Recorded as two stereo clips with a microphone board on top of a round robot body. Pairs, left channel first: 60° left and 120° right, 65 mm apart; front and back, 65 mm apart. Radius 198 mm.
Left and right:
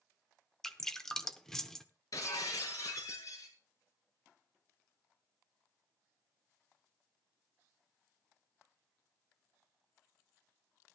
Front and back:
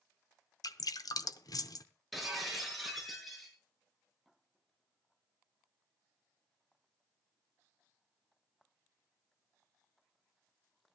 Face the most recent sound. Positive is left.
turn(degrees=90)